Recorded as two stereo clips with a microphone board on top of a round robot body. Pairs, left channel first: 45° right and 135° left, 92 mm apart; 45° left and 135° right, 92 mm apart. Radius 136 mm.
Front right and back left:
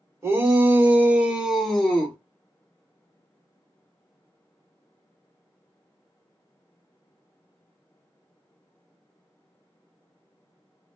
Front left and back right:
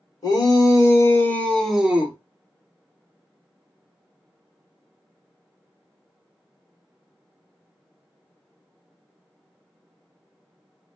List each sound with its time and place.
0.2 s a shout: 80° left, 1.4 m; by 2.2 s 95° right, 0.9 m